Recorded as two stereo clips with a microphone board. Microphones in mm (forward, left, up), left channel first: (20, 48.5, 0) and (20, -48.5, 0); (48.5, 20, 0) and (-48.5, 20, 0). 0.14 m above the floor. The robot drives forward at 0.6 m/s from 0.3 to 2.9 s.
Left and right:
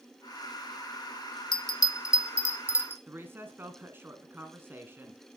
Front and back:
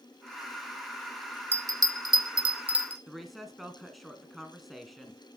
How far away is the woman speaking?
About 1.4 m.